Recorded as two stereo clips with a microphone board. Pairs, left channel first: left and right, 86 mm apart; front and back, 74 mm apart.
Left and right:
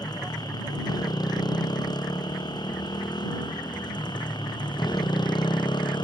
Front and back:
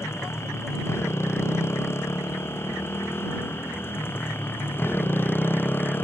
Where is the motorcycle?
55° left; by 6.0 s 60° left.